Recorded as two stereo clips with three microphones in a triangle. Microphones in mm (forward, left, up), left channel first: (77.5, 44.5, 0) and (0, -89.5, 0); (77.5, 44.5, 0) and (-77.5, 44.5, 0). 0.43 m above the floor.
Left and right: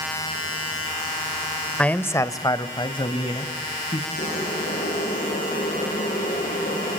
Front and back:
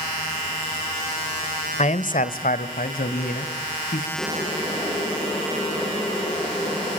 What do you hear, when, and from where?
1.8 s a man speaking: 20° right, 1.2 m; by 4.1 s 10° left, 3.5 m
4.2 s boiling: 85° left, 8 m